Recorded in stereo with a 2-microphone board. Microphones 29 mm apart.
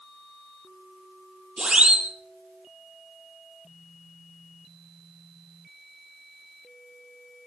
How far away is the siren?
About 9.5 m.